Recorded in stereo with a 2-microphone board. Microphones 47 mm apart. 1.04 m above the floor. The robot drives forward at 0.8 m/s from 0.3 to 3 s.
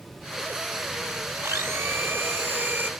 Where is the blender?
75° right (ahead or behind); by 2.9 s 45° right (ahead or behind).